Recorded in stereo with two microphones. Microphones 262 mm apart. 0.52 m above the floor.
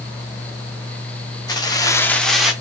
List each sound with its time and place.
1.5 s keys jangling: 15° left (ahead or behind), 0.8 m; by 2.5 s centre (ahead or behind), 1.0 m